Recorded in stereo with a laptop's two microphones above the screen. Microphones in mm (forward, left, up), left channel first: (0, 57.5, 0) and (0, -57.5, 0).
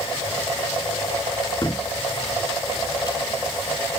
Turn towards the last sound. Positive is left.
turn(degrees=35)  # may be behind; listen again after turning